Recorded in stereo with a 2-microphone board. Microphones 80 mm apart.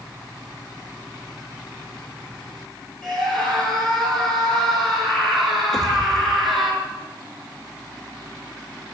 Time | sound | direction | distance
3.0 | a scream | 5° left (ahead or behind) | 9 m
5.7 | a pop | 5° left (ahead or behind) | 2.5 m